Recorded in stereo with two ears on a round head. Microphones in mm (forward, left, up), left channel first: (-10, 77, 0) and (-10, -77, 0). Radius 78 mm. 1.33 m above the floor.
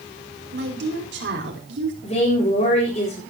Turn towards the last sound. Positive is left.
turn(degrees=35)  # may be behind; listen again after turning